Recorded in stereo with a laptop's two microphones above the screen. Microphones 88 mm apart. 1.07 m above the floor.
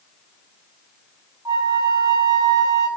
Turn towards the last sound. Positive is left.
turn(degrees=-50)  # may be behind; listen again after turning